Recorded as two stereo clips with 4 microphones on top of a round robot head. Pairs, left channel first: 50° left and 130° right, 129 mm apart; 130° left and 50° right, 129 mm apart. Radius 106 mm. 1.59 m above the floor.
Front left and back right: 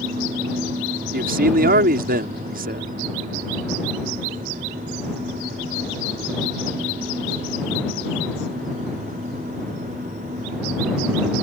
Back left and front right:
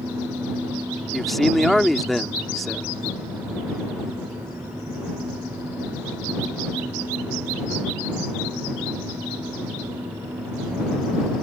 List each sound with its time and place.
1.1 s a man speaking: 140° right